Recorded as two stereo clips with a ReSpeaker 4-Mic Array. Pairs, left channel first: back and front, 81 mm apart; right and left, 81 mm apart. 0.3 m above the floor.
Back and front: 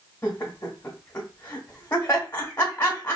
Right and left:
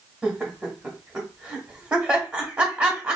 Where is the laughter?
155° left, 1.0 m.